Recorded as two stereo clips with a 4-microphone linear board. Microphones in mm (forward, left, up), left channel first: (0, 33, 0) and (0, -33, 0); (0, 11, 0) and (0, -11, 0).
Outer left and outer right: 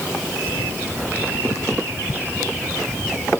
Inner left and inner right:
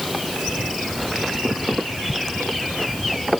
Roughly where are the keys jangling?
No keys jangling in this recording.